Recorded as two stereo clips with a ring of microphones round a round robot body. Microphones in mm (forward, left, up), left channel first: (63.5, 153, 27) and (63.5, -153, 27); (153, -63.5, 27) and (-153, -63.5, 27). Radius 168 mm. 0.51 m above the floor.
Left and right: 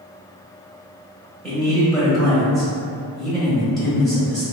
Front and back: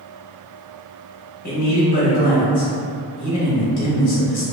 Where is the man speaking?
5° left, 0.8 m.